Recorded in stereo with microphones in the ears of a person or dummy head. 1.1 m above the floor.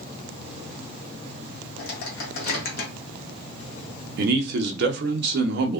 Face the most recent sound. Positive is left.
turn(degrees=-60)  # may be behind; listen again after turning